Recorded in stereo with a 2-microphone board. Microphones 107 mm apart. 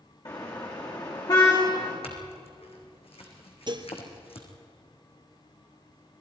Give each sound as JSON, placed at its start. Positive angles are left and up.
{"t": 0.2, "sound": "a car horn", "side_deg": 40, "distance_m": 6.0}
{"t": 2.0, "sound": "a clink", "side_deg": 70, "distance_m": 4.0}
{"t": 3.7, "sound": "dishes clattering", "side_deg": -50, "distance_m": 1.9}